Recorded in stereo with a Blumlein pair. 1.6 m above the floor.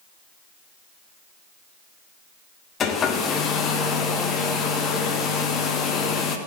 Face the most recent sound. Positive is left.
turn(degrees=25)